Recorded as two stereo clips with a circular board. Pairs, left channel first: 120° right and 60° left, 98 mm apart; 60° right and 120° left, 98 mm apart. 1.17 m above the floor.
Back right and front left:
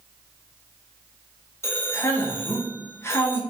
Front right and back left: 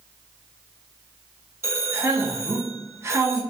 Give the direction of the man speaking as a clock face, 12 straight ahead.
6 o'clock.